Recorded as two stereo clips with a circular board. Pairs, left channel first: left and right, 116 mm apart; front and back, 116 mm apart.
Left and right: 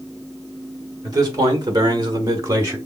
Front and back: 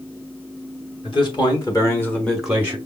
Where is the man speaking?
35° right, 1.9 m; by 2.8 s 140° right, 1.0 m.